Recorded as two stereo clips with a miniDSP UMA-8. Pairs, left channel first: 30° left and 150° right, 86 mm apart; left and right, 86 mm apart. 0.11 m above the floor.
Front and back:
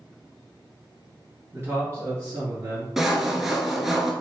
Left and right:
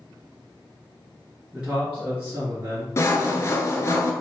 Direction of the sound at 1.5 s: 160° right.